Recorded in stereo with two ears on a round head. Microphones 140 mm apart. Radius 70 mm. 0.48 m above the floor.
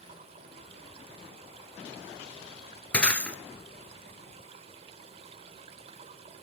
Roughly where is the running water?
Right.